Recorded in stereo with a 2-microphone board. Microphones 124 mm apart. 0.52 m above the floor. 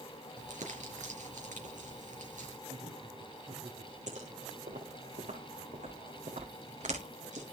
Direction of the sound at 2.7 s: 60° right (ahead or behind).